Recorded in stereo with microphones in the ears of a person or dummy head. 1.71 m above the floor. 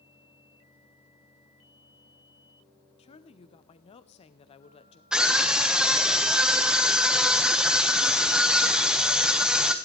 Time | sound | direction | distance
3.0 | a woman speaking | 30° left (ahead or behind) | 0.8 m
5.1 | a scream | 5° right (ahead or behind) | 1.4 m